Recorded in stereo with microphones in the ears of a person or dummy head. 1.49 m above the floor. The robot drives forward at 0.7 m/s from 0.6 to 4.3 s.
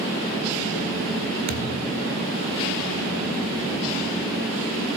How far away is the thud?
About 1.7 m.